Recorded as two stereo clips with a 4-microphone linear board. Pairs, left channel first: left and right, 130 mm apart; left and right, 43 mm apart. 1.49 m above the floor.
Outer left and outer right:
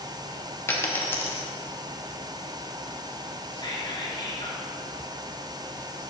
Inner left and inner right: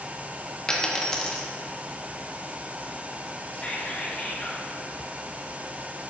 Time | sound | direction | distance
0.7 | a dropped coin | 20° left (ahead or behind) | 1.1 m
3.5 | whispering | 35° left (ahead or behind) | 1.8 m